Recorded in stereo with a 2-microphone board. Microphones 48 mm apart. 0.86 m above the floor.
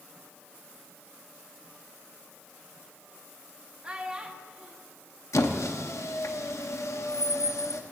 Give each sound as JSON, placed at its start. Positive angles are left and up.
{"t": 3.8, "sound": "a child speaking", "side_deg": -25, "distance_m": 0.9}
{"t": 5.3, "sound": "a squeak", "side_deg": 75, "distance_m": 0.7}